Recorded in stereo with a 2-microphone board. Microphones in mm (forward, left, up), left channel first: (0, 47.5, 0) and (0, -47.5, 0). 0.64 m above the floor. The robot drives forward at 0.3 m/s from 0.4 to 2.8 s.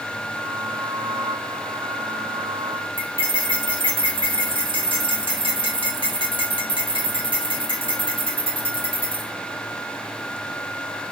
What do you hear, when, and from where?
3.0 s cutlery clinking: 60° right (ahead or behind), 0.8 m